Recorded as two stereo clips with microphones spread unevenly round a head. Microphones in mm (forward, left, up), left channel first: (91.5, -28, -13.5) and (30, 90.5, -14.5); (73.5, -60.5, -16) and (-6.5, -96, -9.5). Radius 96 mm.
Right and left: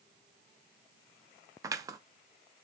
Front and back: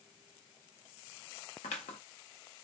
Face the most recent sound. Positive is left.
turn(degrees=50)